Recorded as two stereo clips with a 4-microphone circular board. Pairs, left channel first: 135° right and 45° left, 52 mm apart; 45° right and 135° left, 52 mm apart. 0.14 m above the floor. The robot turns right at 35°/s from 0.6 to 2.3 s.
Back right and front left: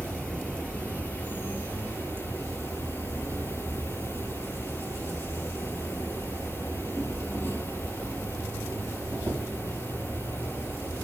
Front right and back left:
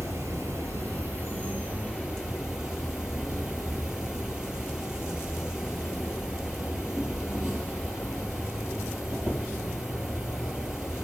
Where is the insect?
160° left, 4 m; by 11.0 s 140° right, 4 m.